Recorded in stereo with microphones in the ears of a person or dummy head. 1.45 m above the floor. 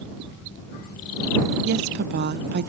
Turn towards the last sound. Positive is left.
turn(degrees=-60)  # may be behind; listen again after turning